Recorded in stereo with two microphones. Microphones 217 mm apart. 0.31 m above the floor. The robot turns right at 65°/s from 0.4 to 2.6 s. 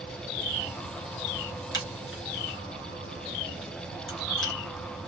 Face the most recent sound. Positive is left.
turn(degrees=65)  # may be behind; listen again after turning